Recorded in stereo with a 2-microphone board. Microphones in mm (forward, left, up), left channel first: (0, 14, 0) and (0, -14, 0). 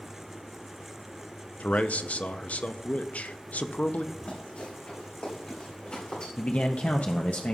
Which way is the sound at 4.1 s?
65° left (ahead or behind).